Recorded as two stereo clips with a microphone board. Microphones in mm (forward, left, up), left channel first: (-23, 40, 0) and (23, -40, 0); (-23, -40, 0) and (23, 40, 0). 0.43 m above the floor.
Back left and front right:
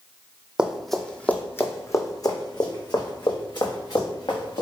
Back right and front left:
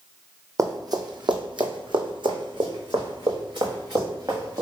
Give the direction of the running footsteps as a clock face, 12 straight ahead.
11 o'clock.